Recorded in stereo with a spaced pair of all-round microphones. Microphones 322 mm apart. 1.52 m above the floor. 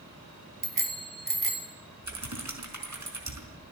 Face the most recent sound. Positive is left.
turn(degrees=-60)  # may be behind; listen again after turning